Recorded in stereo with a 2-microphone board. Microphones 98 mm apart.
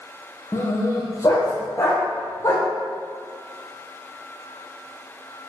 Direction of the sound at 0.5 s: 30° left (ahead or behind).